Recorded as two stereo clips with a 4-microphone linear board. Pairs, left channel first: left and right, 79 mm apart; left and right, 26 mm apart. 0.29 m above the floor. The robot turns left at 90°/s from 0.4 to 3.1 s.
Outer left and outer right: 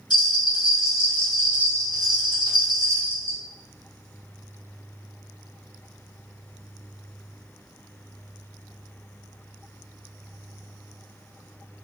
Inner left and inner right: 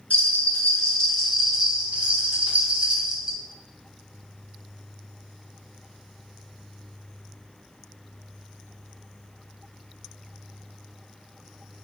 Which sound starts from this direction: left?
A bell, at 0.1 s.